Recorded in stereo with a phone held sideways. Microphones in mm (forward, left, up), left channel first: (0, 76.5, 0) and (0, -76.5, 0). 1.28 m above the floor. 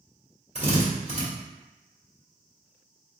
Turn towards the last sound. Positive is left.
turn(degrees=-45)  # may be behind; listen again after turning